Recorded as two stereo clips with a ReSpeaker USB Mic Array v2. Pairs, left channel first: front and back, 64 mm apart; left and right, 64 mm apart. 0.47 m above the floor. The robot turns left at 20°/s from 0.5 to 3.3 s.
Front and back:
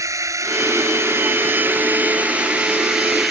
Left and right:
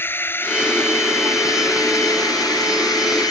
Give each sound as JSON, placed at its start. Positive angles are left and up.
{"t": 0.0, "sound": "a drone", "azimuth_deg": 145}